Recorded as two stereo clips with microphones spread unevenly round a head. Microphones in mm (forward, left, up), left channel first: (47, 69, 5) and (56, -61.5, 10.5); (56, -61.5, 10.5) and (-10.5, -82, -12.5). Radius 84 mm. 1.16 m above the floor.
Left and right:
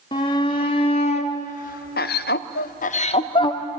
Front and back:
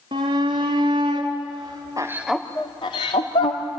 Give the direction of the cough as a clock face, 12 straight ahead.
I don't hear a cough.